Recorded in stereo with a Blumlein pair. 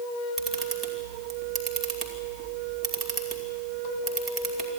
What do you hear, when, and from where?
0.4 s a camera shutter: 15° right, 2.5 m